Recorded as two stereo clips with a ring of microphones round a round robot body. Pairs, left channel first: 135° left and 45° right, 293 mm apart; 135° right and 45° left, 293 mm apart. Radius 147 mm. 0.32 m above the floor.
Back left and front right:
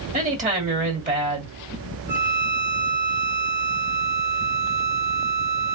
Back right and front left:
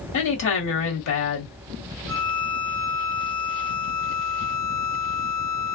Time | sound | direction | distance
0.1 | a woman speaking | 105° right | 2 m
2.1 | a violin | 90° right | 2.5 m